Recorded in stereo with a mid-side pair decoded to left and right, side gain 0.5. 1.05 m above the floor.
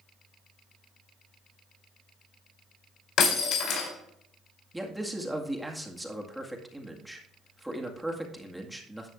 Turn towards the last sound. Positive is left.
turn(degrees=-5)